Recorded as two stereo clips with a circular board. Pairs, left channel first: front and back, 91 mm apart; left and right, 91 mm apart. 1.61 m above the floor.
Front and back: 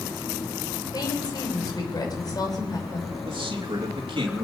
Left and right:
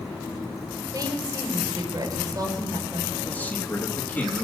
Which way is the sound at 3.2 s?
160° left.